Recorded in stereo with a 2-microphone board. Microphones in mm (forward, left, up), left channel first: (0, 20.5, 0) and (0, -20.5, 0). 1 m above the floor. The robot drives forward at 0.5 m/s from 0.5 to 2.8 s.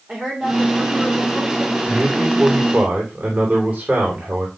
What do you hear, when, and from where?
0.1 s a woman speaking: 35° right (ahead or behind), 3 m; by 1.8 s 45° right (ahead or behind), 2.5 m
1.9 s a man speaking: 50° right (ahead or behind), 4 m; by 4.5 s 55° right (ahead or behind), 3.5 m